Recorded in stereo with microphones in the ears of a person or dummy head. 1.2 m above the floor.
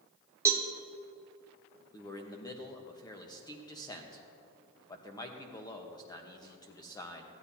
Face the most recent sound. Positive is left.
turn(degrees=20)  # may be behind; listen again after turning